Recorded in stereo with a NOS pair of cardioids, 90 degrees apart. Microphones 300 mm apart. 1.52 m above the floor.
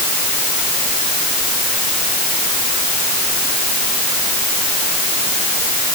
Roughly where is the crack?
No crack in this recording.